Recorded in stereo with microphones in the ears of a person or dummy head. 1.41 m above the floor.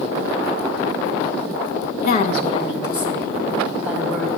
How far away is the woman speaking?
About 0.9 m.